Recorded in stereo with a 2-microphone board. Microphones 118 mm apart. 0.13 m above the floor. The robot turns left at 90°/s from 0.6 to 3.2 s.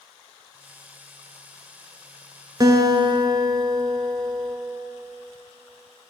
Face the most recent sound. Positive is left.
turn(degrees=-115)